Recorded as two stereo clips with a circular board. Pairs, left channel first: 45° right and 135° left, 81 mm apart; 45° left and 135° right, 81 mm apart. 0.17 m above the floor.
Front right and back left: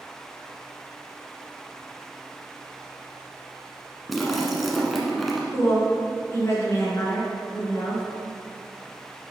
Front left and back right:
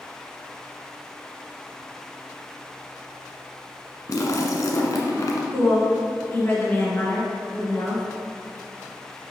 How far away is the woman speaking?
About 2 m.